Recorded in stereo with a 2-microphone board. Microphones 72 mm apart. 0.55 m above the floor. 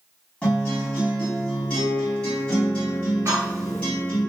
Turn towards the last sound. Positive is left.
turn(degrees=-45)  # may be behind; listen again after turning